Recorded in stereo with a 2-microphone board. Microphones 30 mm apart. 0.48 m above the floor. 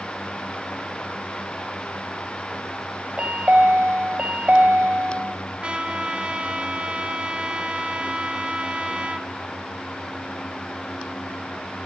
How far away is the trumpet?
About 2 m.